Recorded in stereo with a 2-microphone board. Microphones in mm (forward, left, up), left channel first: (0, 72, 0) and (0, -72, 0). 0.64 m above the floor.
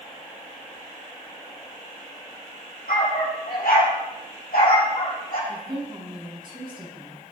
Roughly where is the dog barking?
Left.